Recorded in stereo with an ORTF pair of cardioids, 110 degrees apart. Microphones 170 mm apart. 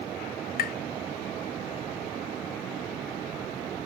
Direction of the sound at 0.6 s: 65° left.